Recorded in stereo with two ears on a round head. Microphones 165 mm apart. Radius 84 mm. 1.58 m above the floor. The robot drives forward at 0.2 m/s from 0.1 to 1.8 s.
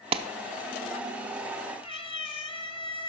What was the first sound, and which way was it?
A clap, 30° right (ahead or behind).